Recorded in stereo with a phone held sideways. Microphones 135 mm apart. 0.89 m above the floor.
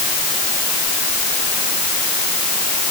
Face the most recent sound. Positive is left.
No sound to turn to.